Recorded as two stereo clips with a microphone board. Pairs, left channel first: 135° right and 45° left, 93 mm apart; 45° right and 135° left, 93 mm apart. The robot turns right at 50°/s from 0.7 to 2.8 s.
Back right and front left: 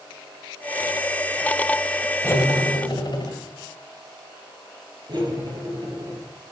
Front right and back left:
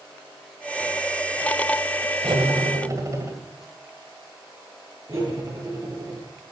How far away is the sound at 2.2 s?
About 2.0 m.